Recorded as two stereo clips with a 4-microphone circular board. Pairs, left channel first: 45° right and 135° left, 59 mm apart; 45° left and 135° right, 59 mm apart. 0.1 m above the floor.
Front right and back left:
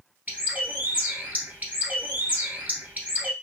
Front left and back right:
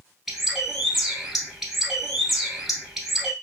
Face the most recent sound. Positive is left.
turn(degrees=145)